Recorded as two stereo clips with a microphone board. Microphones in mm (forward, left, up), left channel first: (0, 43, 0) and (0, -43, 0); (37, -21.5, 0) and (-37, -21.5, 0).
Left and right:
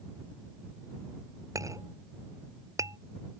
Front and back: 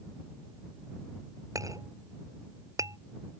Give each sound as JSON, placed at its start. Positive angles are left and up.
{"t": 1.6, "sound": "a clink", "azimuth_deg": -140}